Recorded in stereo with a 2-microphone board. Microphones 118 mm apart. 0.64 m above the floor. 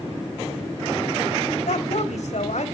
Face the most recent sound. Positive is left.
turn(degrees=75)  # may be behind; listen again after turning